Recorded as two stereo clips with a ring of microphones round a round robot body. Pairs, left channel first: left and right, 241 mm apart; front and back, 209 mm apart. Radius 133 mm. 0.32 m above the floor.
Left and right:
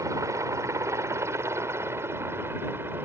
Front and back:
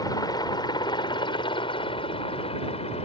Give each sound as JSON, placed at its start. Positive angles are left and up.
{"t": 0.0, "sound": "a helicopter", "azimuth_deg": -35}